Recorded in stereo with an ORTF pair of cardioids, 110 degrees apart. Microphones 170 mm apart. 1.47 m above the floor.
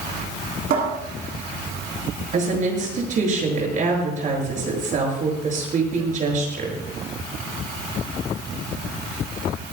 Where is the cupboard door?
60° right, 9 m.